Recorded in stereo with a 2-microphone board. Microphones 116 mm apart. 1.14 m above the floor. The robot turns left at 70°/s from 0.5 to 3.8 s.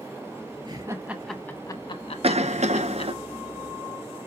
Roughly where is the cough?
Ahead right.